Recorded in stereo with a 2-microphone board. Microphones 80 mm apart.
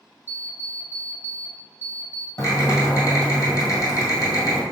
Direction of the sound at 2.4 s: 45° left (ahead or behind).